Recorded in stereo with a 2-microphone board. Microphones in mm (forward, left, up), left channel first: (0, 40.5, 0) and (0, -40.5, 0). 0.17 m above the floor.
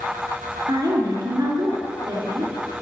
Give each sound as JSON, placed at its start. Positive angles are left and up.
{"t": 0.7, "sound": "a woman speaking", "side_deg": -50, "distance_m": 3.0}